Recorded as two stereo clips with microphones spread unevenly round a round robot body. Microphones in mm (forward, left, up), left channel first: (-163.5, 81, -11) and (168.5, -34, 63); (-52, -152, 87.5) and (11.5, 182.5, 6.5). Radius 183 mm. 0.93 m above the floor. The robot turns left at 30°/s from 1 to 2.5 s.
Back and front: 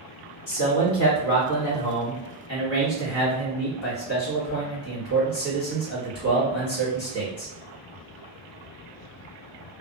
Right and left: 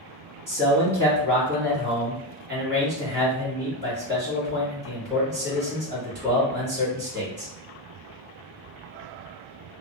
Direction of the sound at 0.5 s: 170° left.